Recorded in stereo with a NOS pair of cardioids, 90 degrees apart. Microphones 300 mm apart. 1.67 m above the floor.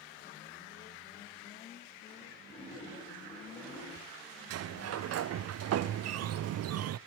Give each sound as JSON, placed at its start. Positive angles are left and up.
{"t": 2.5, "sound": "a splash", "azimuth_deg": 15, "distance_m": 8.5}
{"t": 4.5, "sound": "a sliding door", "azimuth_deg": -55, "distance_m": 0.7}